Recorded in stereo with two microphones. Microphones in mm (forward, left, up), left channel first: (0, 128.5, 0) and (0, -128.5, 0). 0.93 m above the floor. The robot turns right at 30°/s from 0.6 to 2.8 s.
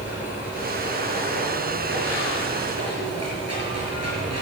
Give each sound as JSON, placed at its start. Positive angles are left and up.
{"t": 0.0, "sound": "running water", "azimuth_deg": -175, "distance_m": 5.5}